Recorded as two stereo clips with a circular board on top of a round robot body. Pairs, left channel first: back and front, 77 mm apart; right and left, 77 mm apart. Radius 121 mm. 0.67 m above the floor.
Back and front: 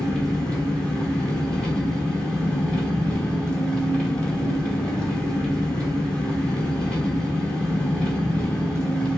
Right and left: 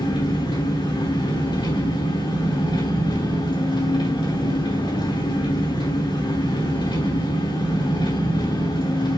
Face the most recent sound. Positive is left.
turn(degrees=-100)